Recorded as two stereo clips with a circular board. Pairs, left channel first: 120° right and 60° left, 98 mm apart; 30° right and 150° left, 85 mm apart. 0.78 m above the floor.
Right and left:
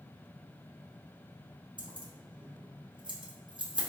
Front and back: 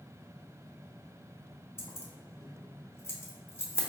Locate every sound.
1.8 s keys jangling: 30° left, 0.7 m